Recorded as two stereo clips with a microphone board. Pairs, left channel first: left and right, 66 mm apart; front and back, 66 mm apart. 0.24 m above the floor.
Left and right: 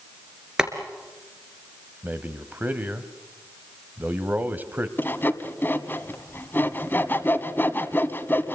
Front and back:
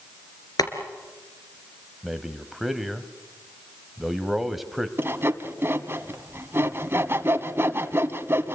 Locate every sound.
0.6 s boiling: 10° right, 3 m
2.0 s a man speaking: 100° right, 1.3 m
5.0 s sawing: 140° left, 1.3 m